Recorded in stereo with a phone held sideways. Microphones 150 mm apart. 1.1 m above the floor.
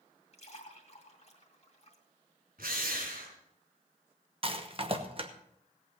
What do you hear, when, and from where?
0.3 s a splash: 45° left (ahead or behind), 2 m
2.6 s a drill: 80° right, 4.5 m
4.4 s a rattle: 40° right (ahead or behind), 1.1 m